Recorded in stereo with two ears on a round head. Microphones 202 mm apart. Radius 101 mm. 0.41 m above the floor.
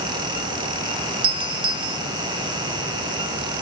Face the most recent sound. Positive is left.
turn(degrees=-25)  # may be behind; listen again after turning